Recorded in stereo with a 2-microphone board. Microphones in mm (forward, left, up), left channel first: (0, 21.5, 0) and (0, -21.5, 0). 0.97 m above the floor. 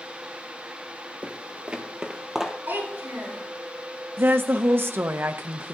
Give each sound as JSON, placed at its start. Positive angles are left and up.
{"t": 1.2, "sound": "footsteps", "side_deg": -35, "distance_m": 1.1}
{"t": 2.7, "sound": "a child speaking", "side_deg": -60, "distance_m": 5.5}
{"t": 4.2, "sound": "a woman speaking", "side_deg": -60, "distance_m": 0.7}